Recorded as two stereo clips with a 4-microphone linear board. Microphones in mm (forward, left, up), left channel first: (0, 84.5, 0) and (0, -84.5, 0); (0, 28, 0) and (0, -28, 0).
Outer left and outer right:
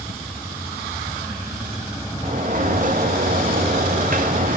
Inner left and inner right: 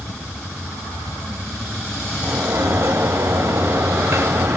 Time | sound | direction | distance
2.2 | a sliding door | 55° right (ahead or behind) | 0.5 m